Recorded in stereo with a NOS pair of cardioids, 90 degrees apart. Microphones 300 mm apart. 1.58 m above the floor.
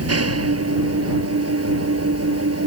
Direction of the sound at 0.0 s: 55° right.